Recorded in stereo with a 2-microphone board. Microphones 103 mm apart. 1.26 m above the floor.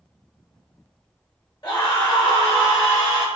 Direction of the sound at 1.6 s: 45° left (ahead or behind).